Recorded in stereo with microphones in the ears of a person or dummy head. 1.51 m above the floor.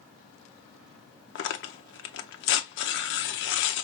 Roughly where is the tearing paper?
Left.